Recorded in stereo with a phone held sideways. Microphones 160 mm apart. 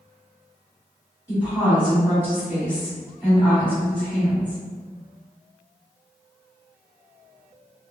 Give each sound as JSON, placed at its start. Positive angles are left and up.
{"t": 1.3, "sound": "a woman speaking", "side_deg": -10, "distance_m": 1.8}